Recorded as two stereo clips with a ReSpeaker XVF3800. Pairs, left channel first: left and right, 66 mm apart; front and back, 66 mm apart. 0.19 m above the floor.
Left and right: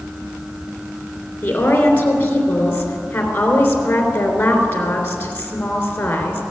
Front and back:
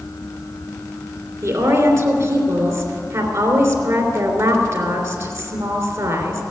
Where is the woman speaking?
150° left, 3 m.